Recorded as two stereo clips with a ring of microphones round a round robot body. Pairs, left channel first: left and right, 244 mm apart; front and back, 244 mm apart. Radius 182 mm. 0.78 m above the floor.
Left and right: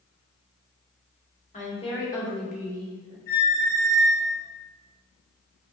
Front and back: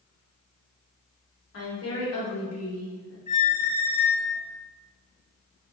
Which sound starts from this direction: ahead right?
A squeak, at 3.3 s.